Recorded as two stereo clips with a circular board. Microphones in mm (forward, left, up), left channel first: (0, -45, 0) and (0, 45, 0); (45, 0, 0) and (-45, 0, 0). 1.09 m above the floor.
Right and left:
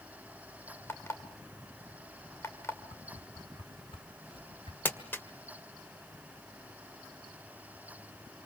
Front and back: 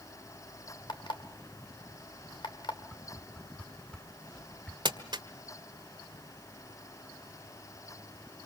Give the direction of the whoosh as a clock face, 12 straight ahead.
3 o'clock.